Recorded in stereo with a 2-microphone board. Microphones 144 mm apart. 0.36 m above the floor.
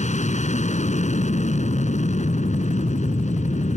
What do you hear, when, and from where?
0.0 s an aircraft: 55° left (ahead or behind)